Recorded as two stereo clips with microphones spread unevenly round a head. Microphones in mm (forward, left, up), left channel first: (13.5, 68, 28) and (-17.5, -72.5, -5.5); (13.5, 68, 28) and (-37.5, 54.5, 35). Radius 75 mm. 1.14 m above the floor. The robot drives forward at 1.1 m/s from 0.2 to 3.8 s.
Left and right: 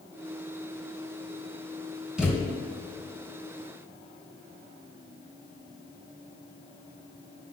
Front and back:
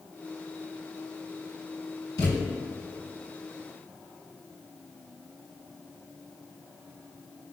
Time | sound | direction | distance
2.2 | a thud | 10° right | 2.5 m